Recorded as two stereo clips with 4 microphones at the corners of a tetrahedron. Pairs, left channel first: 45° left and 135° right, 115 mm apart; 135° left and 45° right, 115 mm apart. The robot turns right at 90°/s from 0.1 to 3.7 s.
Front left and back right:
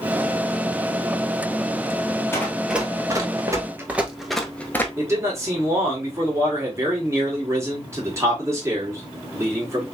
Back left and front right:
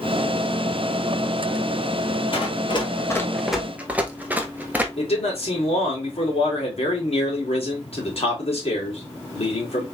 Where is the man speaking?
160° left, 2.5 m.